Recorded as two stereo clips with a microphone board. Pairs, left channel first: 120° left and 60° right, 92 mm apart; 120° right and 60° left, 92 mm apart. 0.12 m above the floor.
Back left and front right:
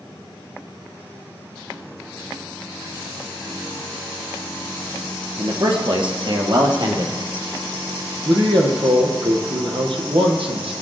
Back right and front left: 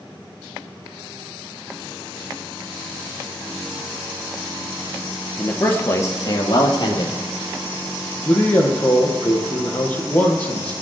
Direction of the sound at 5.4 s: 45° right.